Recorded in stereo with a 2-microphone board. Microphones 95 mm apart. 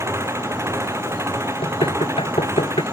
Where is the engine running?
25° right (ahead or behind).